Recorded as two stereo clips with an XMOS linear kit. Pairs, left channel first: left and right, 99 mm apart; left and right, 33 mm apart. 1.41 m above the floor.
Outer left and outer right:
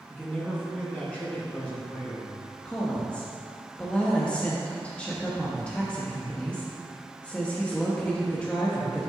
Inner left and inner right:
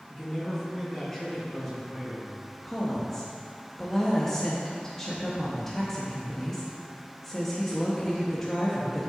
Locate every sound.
0.1 s a man speaking: 15° left (ahead or behind), 1.3 m
2.6 s a woman speaking: 10° left (ahead or behind), 0.9 m